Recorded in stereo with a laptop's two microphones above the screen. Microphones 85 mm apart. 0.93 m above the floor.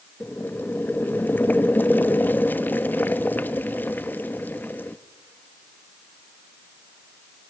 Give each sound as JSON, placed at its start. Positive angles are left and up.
{"t": 0.2, "sound": "boiling", "side_deg": 20, "distance_m": 0.6}